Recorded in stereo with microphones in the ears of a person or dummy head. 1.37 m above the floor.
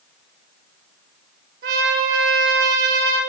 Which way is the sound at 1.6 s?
65° right (ahead or behind).